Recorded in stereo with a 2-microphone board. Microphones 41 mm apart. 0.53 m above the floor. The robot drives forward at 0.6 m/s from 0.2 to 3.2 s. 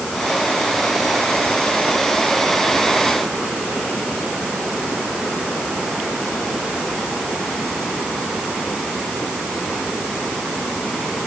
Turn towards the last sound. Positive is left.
No sound to turn to.